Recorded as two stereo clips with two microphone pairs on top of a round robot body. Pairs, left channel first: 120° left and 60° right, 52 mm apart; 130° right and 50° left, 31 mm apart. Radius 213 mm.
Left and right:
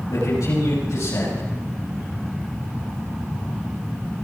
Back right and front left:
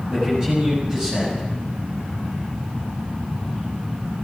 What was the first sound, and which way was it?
A man speaking, 120° left.